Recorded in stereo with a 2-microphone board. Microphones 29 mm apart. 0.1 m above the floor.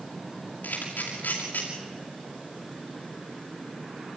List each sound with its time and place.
0.6 s a camera shutter: 85° left, 6.5 m